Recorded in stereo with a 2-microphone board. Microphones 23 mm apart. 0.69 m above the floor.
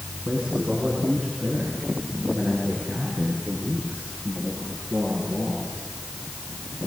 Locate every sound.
0.2 s a man speaking: 75° right (ahead or behind), 6 m; by 5.8 s 65° right (ahead or behind), 10.5 m